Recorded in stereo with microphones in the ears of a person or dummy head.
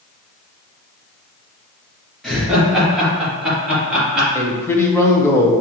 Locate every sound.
2.2 s laughter: centre (ahead or behind), 1.6 m; by 4.2 s 5° right (ahead or behind), 3 m
4.3 s a man speaking: 10° left (ahead or behind), 0.7 m